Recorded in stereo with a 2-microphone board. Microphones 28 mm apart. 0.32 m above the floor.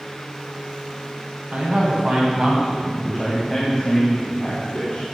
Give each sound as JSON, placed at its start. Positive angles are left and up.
{"t": 1.5, "sound": "a man speaking", "side_deg": -60, "distance_m": 2.5}